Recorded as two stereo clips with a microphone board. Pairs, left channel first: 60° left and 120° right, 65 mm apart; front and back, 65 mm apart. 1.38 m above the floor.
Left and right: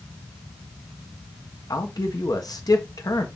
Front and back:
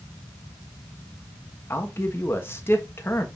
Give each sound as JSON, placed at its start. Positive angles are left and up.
{"t": 1.7, "sound": "a man speaking", "azimuth_deg": 50, "distance_m": 1.3}